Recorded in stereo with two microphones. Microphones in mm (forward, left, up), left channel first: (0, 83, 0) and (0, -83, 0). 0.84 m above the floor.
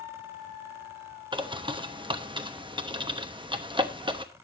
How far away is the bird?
About 1.0 m.